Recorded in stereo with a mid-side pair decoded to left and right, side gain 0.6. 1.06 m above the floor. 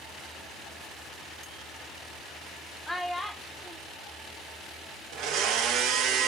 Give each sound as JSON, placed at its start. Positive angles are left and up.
{"t": 2.9, "sound": "a child speaking", "azimuth_deg": 10, "distance_m": 0.6}
{"t": 5.1, "sound": "a blender", "azimuth_deg": -65, "distance_m": 0.6}